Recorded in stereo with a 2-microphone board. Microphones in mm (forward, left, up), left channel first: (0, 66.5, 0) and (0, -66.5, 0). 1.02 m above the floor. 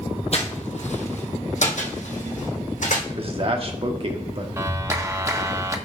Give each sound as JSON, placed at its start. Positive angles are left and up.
{"t": 0.3, "sound": "footsteps", "side_deg": 55, "distance_m": 2.0}
{"t": 3.1, "sound": "a man speaking", "side_deg": -45, "distance_m": 1.6}
{"t": 4.6, "sound": "a clap", "side_deg": -25, "distance_m": 1.1}